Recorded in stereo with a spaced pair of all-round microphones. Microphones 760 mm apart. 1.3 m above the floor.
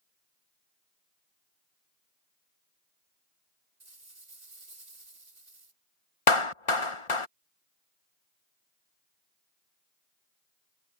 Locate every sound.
3.8 s a rattle: 60° right (ahead or behind)
6.3 s a clap: 45° left (ahead or behind)